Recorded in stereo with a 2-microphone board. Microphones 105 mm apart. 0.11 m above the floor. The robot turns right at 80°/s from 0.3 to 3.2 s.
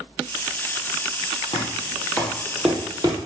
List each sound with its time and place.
1.5 s knocking: 65° left (ahead or behind), 2.5 m; by 3.2 s 45° right (ahead or behind), 2.5 m